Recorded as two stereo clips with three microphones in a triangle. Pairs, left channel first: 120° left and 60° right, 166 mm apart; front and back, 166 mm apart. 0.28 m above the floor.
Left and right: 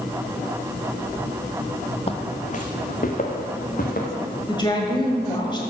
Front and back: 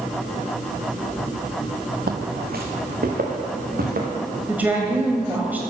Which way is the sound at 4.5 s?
115° left.